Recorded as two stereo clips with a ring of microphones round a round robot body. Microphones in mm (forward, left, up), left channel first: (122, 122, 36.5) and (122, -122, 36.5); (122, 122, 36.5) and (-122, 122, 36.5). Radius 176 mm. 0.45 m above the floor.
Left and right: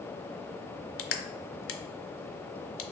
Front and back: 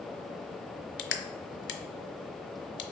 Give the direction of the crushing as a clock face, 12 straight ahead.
10 o'clock.